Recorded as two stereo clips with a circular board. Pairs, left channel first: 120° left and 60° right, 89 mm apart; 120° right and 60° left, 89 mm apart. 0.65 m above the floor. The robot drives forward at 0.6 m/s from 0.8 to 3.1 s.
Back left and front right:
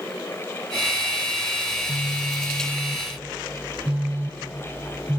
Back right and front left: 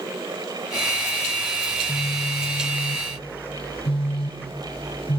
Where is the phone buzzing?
65° right, 0.6 m; by 5.2 s 135° right, 0.8 m.